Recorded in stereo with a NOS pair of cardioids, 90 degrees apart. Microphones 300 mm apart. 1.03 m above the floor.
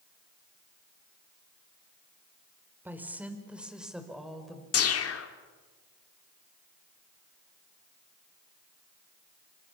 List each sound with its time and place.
2.9 s a woman speaking: 5° right, 4.5 m; by 4.6 s straight ahead, 5.5 m
4.7 s a whoosh: 50° left, 2.5 m